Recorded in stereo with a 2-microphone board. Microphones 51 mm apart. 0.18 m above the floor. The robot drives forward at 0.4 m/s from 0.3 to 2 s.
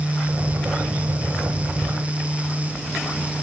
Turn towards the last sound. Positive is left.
No sound to turn to.